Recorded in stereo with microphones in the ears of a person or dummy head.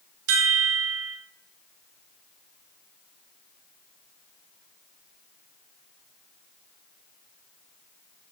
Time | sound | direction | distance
0.3 | a chime | 70° right (ahead or behind) | 0.5 m